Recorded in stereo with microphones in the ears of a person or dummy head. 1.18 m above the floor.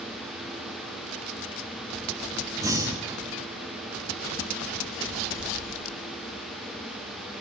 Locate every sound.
2.6 s breathing: 15° right (ahead or behind), 0.9 m